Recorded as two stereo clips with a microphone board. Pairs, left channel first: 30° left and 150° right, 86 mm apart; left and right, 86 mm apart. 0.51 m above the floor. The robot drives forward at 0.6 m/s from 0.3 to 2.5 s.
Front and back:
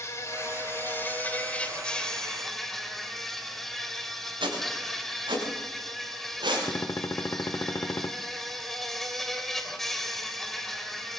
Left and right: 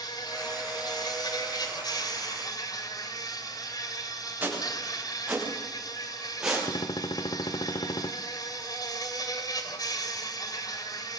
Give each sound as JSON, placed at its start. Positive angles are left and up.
{"t": 0.0, "sound": "an insect", "azimuth_deg": 80, "distance_m": 2.0}
{"t": 4.4, "sound": "footsteps", "azimuth_deg": -160, "distance_m": 9.0}
{"t": 6.7, "sound": "a gunshot", "azimuth_deg": 85, "distance_m": 0.6}